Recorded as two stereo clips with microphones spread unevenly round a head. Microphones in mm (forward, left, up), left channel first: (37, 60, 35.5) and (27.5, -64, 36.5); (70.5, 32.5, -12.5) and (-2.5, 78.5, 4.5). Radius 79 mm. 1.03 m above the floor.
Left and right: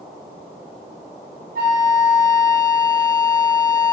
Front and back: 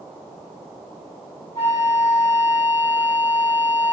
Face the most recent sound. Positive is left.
turn(degrees=-105)